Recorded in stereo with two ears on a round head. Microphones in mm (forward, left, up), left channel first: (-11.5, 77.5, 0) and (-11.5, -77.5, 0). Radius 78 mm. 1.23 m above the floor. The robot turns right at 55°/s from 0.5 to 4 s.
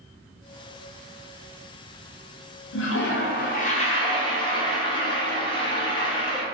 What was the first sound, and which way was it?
A toilet flushing, 80° left.